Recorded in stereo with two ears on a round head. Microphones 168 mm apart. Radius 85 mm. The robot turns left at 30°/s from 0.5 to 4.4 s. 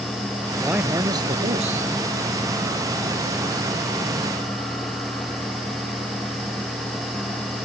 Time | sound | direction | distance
0.6 | a man speaking | 5° right | ?